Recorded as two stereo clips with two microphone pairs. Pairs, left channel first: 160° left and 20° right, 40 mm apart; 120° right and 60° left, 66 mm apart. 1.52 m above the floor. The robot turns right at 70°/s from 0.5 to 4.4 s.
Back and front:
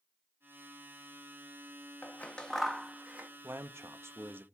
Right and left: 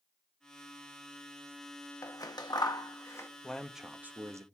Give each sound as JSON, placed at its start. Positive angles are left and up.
{"t": 2.0, "sound": "scissors", "azimuth_deg": -155, "distance_m": 1.1}
{"t": 3.4, "sound": "a man speaking", "azimuth_deg": -50, "distance_m": 0.7}